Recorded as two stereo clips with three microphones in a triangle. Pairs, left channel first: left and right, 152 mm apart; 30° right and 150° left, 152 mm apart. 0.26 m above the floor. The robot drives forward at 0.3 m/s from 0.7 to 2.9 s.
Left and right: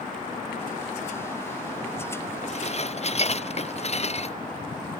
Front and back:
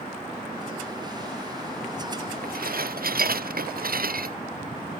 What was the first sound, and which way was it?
Dishes clattering, 135° left.